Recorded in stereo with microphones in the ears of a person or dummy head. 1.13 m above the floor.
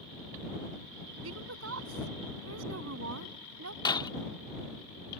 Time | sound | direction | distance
1.2 | a woman speaking | 85° right | ?
3.9 | breaking glass | 25° left (ahead or behind) | ?